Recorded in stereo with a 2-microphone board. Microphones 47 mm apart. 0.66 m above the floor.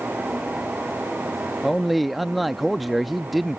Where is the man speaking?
Centre (ahead or behind).